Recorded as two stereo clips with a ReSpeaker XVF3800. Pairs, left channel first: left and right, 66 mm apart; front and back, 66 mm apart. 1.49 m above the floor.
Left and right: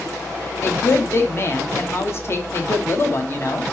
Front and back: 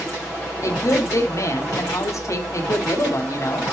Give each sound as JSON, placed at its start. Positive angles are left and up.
{"t": 0.6, "sound": "a woman speaking", "azimuth_deg": 40, "distance_m": 0.7}